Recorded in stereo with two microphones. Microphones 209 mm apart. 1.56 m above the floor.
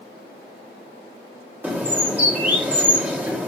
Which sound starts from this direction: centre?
A bird, at 1.6 s.